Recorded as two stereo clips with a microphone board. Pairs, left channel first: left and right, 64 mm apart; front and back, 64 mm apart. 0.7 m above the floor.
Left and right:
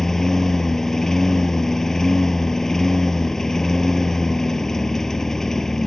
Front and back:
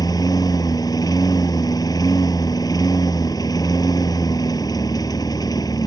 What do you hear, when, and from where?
0.0 s a lawn mower: 5° left